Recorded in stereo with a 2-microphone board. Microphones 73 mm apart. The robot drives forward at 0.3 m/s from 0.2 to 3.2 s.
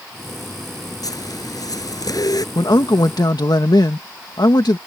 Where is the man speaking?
65° left (ahead or behind).